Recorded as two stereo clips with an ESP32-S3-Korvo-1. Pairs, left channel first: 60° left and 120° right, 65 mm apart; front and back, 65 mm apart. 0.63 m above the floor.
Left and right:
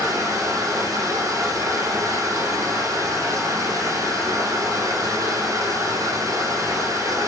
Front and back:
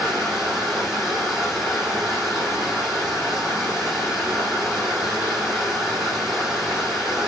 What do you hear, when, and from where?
0.0 s running water: 105° right, 7.5 m